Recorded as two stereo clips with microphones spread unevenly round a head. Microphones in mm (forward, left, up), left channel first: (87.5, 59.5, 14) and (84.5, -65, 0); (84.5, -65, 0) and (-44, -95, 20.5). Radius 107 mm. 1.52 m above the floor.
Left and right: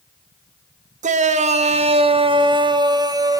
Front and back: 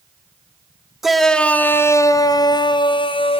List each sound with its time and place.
1.0 s a shout: 80° right, 1.9 m; by 3.4 s 30° right, 3 m